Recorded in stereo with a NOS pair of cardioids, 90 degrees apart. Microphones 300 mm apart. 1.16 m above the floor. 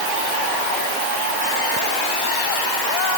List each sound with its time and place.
Only background noise.